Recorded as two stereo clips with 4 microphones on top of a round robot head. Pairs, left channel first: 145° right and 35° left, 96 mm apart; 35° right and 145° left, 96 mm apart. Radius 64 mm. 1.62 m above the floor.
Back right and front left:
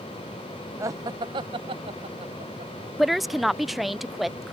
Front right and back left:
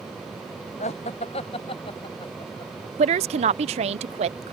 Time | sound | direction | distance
0.8 | laughter | 25° right | ?
3.0 | a woman speaking | 125° left | ?